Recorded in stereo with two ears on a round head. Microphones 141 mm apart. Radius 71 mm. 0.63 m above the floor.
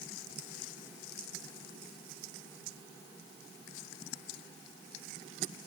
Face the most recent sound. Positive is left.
No sound to turn to.